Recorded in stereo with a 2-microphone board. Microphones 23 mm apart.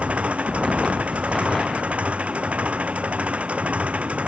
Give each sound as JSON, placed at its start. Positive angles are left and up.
{"t": 0.0, "sound": "an engine running", "side_deg": -65}